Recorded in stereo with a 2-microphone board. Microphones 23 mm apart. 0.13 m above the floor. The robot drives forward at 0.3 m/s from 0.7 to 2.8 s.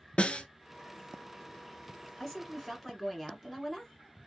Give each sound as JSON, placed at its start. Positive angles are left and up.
{"t": 0.2, "sound": "a snare drum", "side_deg": 55, "distance_m": 0.5}
{"t": 2.2, "sound": "a woman speaking", "side_deg": 10, "distance_m": 1.2}